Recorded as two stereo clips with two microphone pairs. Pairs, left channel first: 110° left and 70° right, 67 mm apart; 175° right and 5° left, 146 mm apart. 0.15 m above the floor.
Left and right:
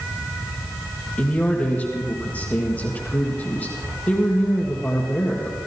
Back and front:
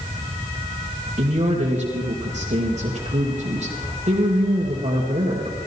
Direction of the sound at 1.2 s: 35° left.